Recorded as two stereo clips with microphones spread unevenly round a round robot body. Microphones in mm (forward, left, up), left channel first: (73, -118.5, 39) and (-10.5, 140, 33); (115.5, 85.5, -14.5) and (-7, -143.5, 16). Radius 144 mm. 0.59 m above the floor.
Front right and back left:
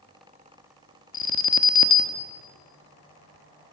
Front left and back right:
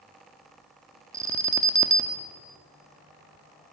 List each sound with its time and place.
1.1 s an alarm: 40° right, 0.9 m